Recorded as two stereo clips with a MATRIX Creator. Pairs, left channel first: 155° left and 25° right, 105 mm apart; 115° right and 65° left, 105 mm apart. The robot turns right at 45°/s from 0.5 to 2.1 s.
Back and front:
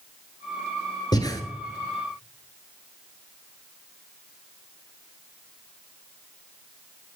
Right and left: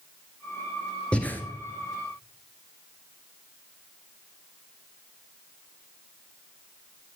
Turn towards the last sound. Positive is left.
turn(degrees=-140)